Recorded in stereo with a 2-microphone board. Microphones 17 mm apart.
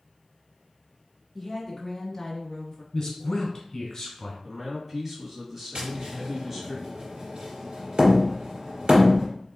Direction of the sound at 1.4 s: 10° left (ahead or behind).